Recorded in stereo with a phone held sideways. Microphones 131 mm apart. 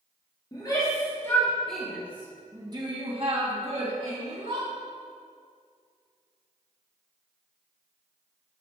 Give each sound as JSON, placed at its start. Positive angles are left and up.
{"t": 0.5, "sound": "a shout", "side_deg": 30, "distance_m": 3.0}